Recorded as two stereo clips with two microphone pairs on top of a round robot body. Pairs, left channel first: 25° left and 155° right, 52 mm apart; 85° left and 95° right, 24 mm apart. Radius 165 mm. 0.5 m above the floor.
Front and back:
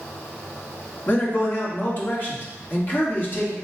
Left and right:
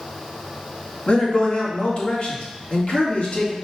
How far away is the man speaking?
About 2.0 m.